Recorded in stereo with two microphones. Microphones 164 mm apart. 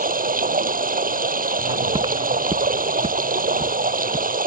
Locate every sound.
0.0 s running water: 60° right (ahead or behind)
1.6 s footsteps: 25° right (ahead or behind); by 4.4 s 45° right (ahead or behind)